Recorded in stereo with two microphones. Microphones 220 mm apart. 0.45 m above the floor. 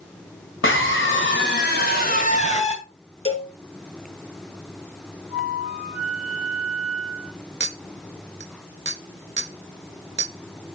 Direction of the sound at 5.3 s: 90° left.